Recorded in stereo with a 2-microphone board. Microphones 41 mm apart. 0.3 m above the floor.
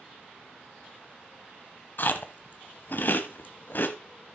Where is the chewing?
55° left (ahead or behind), 0.8 m.